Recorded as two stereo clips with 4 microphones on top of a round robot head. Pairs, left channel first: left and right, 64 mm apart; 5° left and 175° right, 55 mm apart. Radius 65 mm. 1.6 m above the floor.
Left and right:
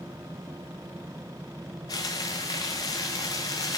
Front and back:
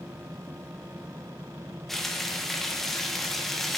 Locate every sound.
1.9 s frying: 90° left, 0.8 m